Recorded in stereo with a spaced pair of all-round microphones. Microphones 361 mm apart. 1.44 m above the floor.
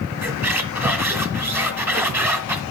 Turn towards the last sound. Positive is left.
turn(degrees=-5)  # may be behind; listen again after turning